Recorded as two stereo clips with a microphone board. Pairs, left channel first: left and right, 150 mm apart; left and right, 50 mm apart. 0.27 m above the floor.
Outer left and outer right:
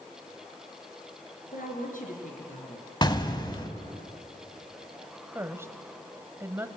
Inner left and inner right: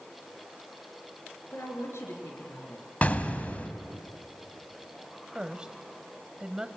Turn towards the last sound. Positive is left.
turn(degrees=-15)  # may be behind; listen again after turning